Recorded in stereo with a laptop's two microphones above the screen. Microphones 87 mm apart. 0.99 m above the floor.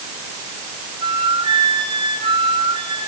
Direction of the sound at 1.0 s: 70° right (ahead or behind).